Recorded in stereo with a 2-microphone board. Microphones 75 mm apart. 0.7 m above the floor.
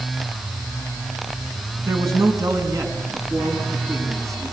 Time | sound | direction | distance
1.8 | a man speaking | 50° right (ahead or behind) | 6 m